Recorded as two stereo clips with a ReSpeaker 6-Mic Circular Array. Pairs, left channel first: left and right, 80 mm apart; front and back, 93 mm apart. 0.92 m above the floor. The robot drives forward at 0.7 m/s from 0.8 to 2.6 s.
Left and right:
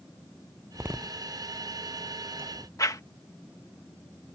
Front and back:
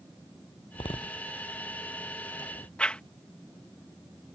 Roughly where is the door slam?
Ahead right.